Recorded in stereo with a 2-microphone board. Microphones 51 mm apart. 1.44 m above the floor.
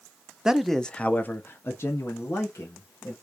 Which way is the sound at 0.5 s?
10° right (ahead or behind).